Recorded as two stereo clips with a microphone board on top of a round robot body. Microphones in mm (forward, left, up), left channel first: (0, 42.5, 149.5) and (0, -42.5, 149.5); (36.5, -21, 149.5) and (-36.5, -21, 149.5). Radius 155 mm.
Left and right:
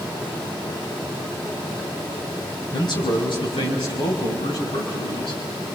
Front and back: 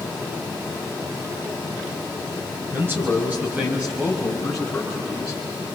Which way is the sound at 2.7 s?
120° left.